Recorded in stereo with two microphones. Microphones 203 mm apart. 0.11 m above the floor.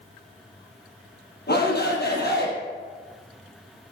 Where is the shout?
55° left (ahead or behind), 3.5 m.